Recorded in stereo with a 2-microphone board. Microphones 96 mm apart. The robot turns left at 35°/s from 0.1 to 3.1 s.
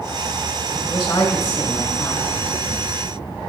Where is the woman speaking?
65° left, 1.1 m; by 2.3 s 20° left, 1.1 m.